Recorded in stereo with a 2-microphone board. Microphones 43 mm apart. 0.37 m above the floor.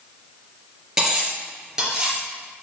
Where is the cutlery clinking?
15° right (ahead or behind), 3.5 m.